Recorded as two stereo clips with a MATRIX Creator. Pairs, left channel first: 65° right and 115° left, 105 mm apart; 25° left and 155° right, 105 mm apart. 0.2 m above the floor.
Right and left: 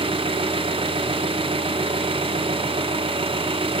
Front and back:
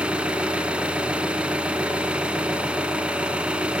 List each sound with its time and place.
0.0 s an engine running: 125° left, 0.8 m